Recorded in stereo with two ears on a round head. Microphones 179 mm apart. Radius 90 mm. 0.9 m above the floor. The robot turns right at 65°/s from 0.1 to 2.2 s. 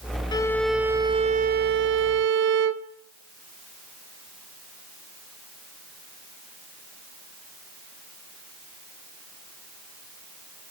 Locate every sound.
0.3 s a violin: 155° left, 1.1 m; by 2.9 s 80° right, 1.1 m